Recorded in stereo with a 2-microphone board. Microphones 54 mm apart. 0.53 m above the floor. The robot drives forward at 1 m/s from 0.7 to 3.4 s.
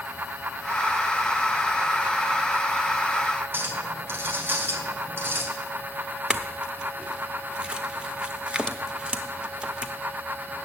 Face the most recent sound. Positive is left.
turn(degrees=-20)  # may be behind; listen again after turning